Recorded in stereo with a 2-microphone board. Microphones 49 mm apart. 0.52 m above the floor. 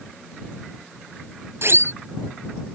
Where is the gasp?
I don't hear a gasp.